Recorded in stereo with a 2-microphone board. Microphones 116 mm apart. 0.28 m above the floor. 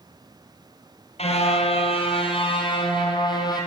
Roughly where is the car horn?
Left.